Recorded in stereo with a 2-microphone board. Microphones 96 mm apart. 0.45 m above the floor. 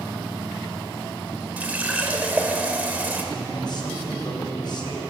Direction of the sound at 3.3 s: 50° left (ahead or behind).